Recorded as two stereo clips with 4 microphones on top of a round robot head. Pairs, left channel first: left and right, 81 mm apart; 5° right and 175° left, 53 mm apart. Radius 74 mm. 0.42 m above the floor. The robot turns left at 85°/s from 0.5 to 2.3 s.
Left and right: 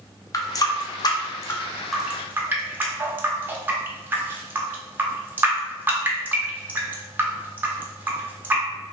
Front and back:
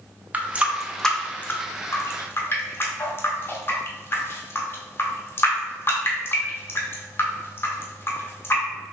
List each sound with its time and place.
0.3 s a running tap: 125° left, 0.6 m; by 8.6 s 30° right, 0.6 m